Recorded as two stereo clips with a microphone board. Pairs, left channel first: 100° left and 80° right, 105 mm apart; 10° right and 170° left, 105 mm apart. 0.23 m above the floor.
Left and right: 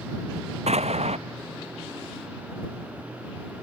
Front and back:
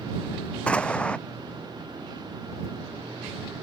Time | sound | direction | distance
0.7 | an explosion | 90° right | ?